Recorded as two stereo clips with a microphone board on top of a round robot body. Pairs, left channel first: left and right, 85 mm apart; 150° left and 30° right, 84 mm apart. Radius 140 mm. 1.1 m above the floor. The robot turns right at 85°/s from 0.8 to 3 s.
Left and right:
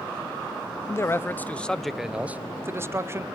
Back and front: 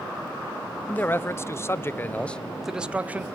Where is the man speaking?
95° left, 0.7 m; by 3.3 s 85° right, 0.7 m.